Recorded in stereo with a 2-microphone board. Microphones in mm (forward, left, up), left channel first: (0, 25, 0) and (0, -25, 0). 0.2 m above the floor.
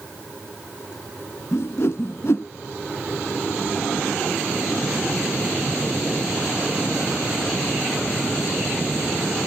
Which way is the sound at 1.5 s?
65° left (ahead or behind).